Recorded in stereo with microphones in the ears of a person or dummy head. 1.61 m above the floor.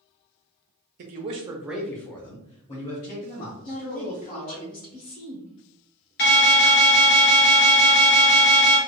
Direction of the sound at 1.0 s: 45° right (ahead or behind).